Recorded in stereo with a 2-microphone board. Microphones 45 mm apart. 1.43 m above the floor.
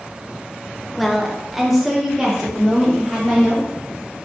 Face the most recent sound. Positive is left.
turn(degrees=-10)  # may be behind; listen again after turning